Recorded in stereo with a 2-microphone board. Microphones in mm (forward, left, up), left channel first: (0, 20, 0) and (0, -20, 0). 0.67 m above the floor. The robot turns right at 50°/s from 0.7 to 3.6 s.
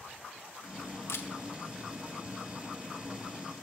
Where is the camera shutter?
75° left (ahead or behind), 0.6 m; by 1.3 s 70° left (ahead or behind), 0.6 m.